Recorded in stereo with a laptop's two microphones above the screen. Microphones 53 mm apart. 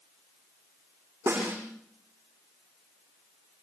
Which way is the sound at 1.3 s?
45° right (ahead or behind).